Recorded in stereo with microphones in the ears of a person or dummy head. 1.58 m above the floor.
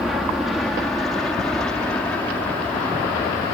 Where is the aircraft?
Centre (ahead or behind); by 3.5 s 15° left (ahead or behind).